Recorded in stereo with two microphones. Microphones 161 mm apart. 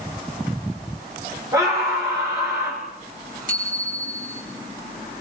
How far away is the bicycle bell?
About 4.5 m.